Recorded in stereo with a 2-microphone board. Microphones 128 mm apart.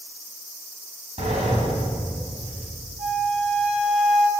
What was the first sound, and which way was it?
A sliding door, 60° right (ahead or behind).